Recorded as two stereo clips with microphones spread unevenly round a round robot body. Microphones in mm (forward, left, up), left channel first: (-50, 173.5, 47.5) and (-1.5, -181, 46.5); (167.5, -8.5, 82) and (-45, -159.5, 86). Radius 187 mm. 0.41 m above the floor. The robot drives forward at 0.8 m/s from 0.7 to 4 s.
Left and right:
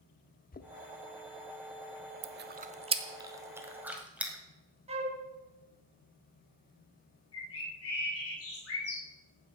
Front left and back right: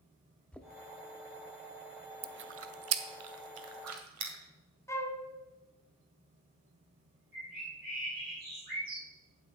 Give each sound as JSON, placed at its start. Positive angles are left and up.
{"t": 0.5, "sound": "knocking", "azimuth_deg": 115, "distance_m": 0.7}
{"t": 2.2, "sound": "chewing", "azimuth_deg": -115, "distance_m": 0.6}
{"t": 4.9, "sound": "a flute", "azimuth_deg": -30, "distance_m": 1.4}
{"t": 7.3, "sound": "a bird", "azimuth_deg": 150, "distance_m": 3.0}